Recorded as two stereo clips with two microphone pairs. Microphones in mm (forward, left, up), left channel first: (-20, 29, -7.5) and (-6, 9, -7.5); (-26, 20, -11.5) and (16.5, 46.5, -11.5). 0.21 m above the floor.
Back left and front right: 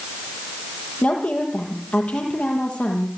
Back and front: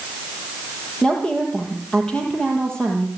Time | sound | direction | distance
1.0 | a woman speaking | 140° left | 7 m